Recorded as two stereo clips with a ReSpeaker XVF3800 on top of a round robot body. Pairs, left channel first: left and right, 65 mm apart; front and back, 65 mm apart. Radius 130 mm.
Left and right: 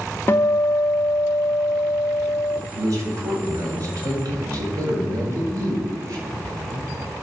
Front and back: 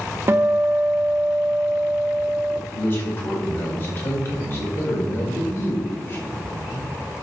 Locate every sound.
0.3 s a guitar: 135° left, 1.0 m
2.7 s a man speaking: 55° right, 4.5 m